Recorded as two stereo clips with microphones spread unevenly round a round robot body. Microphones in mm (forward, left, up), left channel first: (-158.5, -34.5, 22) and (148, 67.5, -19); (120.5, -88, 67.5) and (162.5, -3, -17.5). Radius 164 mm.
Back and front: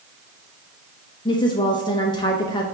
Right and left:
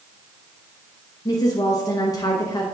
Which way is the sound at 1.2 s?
125° left.